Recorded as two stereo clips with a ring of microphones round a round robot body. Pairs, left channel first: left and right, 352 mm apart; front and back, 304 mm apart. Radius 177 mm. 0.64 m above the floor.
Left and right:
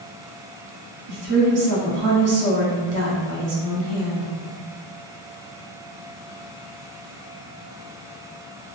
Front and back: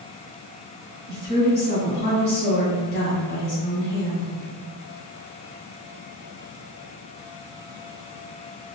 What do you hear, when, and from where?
1.1 s a woman speaking: 50° right, 1.1 m